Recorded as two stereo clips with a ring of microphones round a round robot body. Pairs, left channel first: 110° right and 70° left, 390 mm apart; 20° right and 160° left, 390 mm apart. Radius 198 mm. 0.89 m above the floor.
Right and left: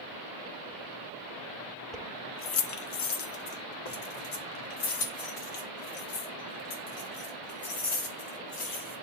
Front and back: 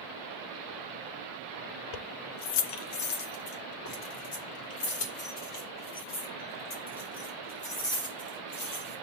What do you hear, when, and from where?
1.9 s keys jangling: 25° right, 0.5 m; by 8.9 s 85° right, 5.5 m